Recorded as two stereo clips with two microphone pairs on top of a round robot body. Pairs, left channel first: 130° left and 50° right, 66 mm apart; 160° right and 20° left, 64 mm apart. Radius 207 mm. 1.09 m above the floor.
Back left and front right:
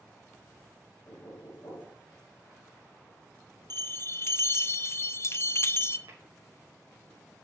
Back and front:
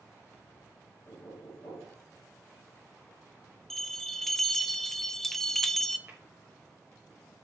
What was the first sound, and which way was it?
Knocking, 175° left.